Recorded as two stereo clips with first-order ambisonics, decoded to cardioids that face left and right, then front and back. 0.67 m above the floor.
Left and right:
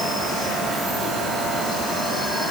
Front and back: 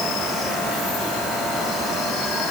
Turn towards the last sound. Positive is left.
No sound to turn to.